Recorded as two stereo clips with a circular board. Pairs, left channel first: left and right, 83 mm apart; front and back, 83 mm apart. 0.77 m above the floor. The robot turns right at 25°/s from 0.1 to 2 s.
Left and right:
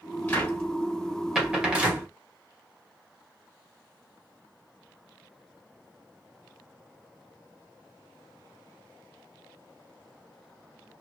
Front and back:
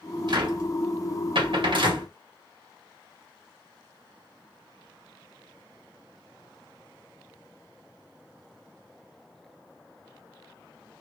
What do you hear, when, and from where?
0.3 s a cupboard door: 155° left, 1.6 m; by 2.1 s 165° right, 1.6 m